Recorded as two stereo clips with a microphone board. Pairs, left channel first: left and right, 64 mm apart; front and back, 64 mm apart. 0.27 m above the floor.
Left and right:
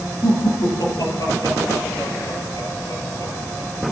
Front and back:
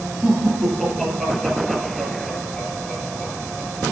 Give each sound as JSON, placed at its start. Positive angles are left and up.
{"t": 0.2, "sound": "laughter", "azimuth_deg": 90, "distance_m": 7.5}